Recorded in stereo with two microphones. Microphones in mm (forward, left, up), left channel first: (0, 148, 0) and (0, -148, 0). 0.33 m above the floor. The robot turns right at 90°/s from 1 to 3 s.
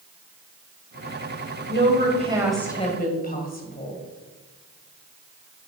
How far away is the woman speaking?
About 1.8 m.